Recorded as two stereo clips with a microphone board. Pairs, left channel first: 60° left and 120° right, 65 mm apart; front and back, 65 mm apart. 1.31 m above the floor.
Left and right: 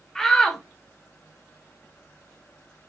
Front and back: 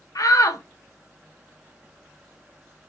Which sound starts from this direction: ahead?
A shout, at 0.1 s.